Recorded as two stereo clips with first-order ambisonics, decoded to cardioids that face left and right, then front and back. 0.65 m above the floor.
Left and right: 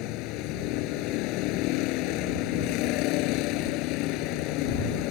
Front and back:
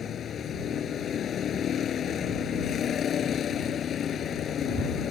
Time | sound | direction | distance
0.0 | a vehicle | 60° left | ?